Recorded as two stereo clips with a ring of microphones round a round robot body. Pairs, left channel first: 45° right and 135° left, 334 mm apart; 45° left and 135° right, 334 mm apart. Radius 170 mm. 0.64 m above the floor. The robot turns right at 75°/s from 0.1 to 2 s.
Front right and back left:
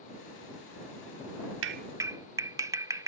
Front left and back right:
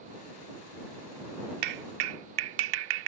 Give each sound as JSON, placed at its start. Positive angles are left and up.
{"t": 1.6, "sound": "a clap", "azimuth_deg": -175}